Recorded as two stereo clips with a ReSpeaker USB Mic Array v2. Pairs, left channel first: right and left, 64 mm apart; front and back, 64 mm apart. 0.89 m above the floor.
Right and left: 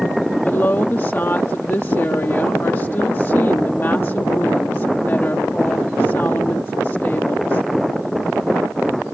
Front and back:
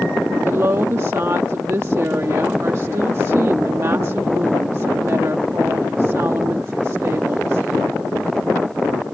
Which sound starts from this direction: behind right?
A woman speaking, at 0.4 s.